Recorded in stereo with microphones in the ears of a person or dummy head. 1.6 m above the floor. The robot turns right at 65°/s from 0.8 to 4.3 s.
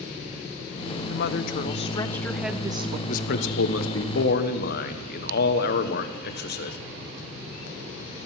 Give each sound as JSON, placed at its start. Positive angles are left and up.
{"t": 1.1, "sound": "a woman speaking", "azimuth_deg": 95, "distance_m": 0.7}
{"t": 3.1, "sound": "a man speaking", "azimuth_deg": 45, "distance_m": 1.2}